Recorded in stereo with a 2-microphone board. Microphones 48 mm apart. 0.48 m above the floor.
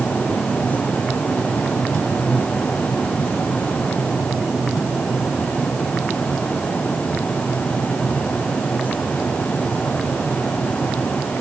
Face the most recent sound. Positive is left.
No sound to turn to.